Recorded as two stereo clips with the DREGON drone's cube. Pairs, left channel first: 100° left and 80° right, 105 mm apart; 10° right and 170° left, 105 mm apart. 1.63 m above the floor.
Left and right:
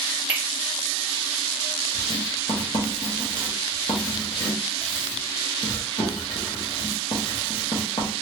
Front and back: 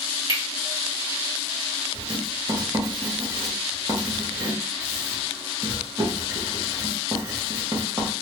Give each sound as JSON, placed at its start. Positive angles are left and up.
{"t": 0.3, "sound": "cutlery clinking", "azimuth_deg": -150, "distance_m": 1.9}
{"t": 1.9, "sound": "writing", "azimuth_deg": 125, "distance_m": 1.3}